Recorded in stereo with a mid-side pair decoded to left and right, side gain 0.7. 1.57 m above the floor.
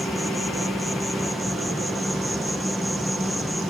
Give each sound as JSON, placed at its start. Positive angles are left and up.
{"t": 0.0, "sound": "an insect", "azimuth_deg": 0}